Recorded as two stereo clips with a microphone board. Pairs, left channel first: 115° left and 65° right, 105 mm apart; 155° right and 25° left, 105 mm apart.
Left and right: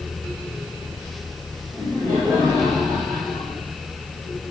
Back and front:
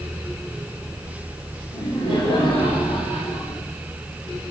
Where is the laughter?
170° right, 4 m; by 3.6 s 155° right, 4.5 m.